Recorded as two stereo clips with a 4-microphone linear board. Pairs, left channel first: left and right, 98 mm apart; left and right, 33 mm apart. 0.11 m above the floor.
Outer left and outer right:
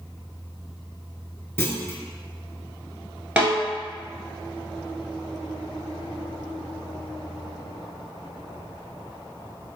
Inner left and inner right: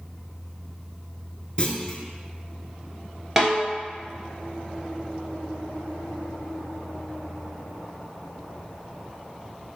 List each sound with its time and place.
1.6 s a clunk: 25° left (ahead or behind), 0.5 m
3.4 s a snare drum: 15° right (ahead or behind), 1.4 m